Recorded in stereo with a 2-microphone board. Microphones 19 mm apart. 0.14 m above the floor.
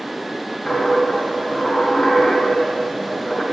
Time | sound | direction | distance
0.7 | a dropped coin | 50° left (ahead or behind) | 2.5 m